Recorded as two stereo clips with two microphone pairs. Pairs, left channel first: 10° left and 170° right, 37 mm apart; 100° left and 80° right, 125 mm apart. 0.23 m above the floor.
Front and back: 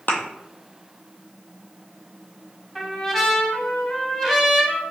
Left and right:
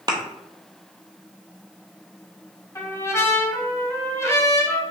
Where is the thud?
25° right, 0.8 m.